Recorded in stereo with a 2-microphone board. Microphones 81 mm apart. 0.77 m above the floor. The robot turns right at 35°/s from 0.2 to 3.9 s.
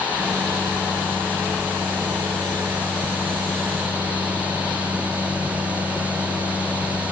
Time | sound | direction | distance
0.2 | a microwave | 10° right | 3.5 m